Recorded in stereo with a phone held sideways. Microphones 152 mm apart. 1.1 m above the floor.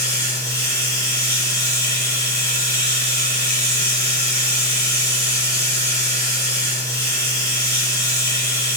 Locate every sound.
0.0 s running water: 20° left (ahead or behind), 1.0 m